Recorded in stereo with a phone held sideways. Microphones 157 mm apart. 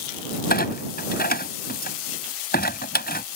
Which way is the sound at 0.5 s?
80° left.